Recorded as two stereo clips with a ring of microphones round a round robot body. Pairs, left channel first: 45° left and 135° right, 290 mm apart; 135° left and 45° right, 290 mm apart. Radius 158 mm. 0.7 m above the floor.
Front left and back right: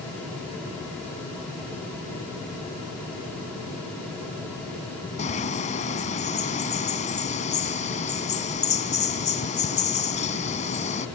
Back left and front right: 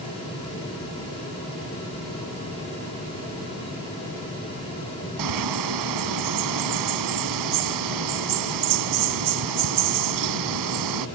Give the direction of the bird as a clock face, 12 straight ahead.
1 o'clock.